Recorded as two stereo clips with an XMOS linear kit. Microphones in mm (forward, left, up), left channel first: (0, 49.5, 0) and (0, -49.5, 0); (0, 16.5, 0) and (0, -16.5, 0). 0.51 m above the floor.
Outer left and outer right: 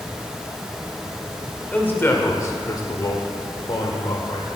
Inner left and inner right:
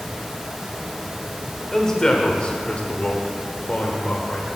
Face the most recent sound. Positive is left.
turn(degrees=60)  # may be behind; listen again after turning